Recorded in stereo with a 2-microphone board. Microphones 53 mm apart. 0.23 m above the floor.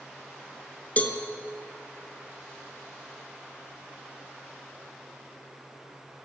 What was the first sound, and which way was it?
A cowbell, 30° left (ahead or behind).